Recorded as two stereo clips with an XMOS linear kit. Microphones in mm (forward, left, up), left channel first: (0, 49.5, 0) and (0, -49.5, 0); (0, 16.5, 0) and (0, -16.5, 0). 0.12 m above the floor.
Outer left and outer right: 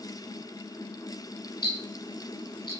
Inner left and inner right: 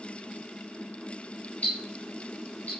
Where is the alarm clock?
No alarm clock in this recording.